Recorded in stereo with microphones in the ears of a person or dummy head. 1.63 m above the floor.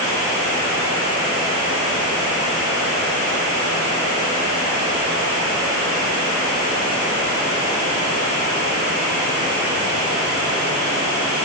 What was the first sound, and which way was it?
Only background noise.